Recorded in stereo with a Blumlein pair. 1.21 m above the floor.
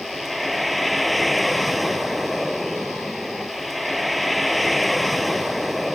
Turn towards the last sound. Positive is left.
turn(degrees=0)